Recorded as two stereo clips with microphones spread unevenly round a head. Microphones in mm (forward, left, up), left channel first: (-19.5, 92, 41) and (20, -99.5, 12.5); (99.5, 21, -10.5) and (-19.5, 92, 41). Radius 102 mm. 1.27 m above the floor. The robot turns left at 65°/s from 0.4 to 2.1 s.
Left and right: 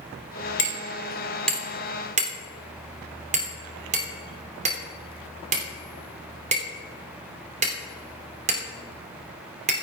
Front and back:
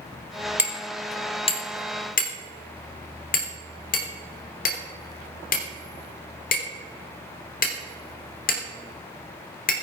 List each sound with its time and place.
0.6 s hammering: 75° left, 3 m; by 9.7 s 25° right, 3 m